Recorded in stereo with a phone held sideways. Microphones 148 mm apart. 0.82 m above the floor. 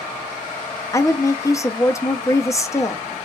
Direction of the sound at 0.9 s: 20° left (ahead or behind).